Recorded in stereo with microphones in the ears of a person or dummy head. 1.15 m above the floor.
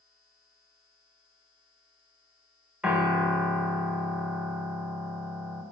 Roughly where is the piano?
Centre.